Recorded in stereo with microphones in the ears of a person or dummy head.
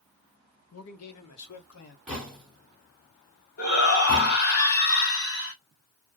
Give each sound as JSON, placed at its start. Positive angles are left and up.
{"t": 0.7, "sound": "a man speaking", "side_deg": 70, "distance_m": 0.8}
{"t": 2.1, "sound": "knocking", "side_deg": 0, "distance_m": 1.3}
{"t": 3.6, "sound": "a shout", "side_deg": 60, "distance_m": 1.2}